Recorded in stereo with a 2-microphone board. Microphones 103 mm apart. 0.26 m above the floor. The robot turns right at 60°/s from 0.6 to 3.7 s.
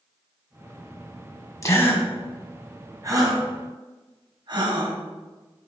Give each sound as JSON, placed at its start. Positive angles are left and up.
{"t": 1.6, "sound": "a gasp", "side_deg": 30, "distance_m": 2.0}